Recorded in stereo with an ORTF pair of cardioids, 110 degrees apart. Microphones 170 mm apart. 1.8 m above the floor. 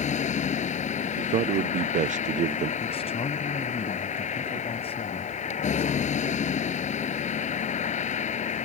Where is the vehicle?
45° left.